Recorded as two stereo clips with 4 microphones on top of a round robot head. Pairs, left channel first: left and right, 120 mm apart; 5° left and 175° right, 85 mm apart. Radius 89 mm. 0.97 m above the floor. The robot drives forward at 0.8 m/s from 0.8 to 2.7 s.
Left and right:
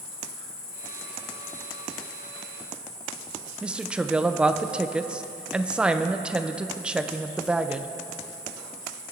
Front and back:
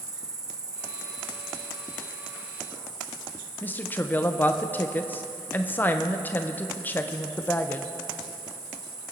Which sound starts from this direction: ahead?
A woman speaking, at 3.6 s.